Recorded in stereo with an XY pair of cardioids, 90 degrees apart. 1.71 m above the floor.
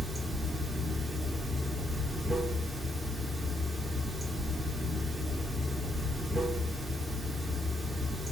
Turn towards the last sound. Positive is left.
turn(degrees=-25)